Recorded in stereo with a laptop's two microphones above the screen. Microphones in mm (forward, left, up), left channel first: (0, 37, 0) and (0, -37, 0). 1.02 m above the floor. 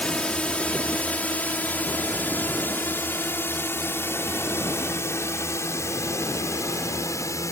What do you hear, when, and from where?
0.0 s a drone: 15° left (ahead or behind); by 7.5 s 45° left (ahead or behind)